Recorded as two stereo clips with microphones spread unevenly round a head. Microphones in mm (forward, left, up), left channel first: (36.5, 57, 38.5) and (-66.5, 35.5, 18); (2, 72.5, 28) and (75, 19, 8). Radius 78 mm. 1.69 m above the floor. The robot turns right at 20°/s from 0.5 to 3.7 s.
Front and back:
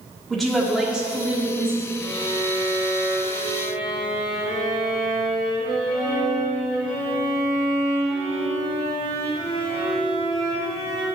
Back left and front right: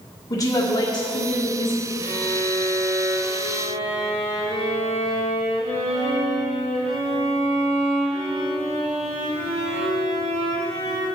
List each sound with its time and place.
0.3 s a woman speaking: 100° left, 1.8 m; by 1.9 s 130° left, 1.8 m
2.0 s a violin: 65° right, 2.5 m; by 11.1 s 30° right, 2.5 m